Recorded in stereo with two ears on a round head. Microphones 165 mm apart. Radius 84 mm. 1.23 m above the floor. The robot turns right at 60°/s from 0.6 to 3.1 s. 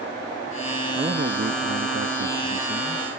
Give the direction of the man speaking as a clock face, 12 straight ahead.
5 o'clock.